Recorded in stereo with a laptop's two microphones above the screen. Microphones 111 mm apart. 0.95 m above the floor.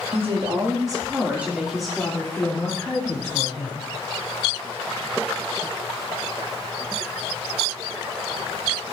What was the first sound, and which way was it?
A woman speaking, 60° right (ahead or behind).